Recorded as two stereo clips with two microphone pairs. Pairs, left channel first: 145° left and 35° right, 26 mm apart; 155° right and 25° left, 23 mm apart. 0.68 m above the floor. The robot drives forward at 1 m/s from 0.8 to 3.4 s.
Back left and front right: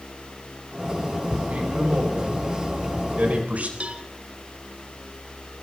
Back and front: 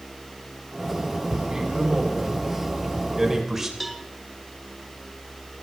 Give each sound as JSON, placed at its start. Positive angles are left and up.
{"t": 1.5, "sound": "a man speaking", "azimuth_deg": -35, "distance_m": 4.5}
{"t": 3.8, "sound": "a cowbell", "azimuth_deg": -65, "distance_m": 1.1}